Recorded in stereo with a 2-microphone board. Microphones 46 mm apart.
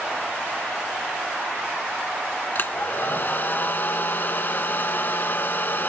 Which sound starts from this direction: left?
A hair dryer, at 2.5 s.